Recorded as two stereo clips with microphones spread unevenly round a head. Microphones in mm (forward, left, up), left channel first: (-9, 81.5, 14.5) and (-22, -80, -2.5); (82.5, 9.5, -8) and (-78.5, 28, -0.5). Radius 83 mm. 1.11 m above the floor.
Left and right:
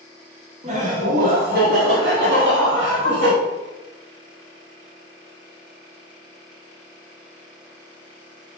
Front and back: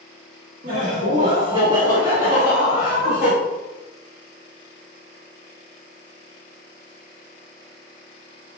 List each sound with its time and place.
0.6 s laughter: 145° right, 1.3 m; by 3.3 s 100° right, 2 m